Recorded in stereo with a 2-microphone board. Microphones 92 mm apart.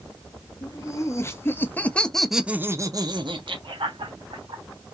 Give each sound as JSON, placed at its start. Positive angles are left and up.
{"t": 0.6, "sound": "laughter", "side_deg": 35, "distance_m": 1.3}